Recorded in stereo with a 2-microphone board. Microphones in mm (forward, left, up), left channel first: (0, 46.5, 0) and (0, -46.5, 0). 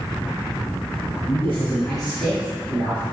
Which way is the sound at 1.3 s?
25° left (ahead or behind).